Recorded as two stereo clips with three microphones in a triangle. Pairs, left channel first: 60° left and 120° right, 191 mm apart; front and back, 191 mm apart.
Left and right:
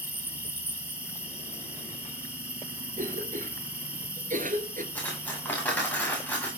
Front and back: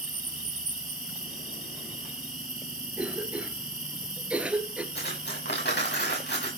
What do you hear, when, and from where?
0.0 s an insect: 160° left, 3.5 m
3.0 s a cough: 100° right, 2 m
5.0 s cutlery clinking: 20° right, 8 m